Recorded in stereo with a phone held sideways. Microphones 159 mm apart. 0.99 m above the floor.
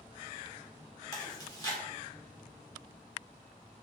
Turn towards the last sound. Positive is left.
turn(degrees=25)  # may be behind; listen again after turning